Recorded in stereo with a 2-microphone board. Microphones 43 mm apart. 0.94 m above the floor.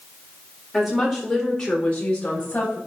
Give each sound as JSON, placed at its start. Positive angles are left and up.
{"t": 0.7, "sound": "a woman speaking", "side_deg": -5, "distance_m": 4.0}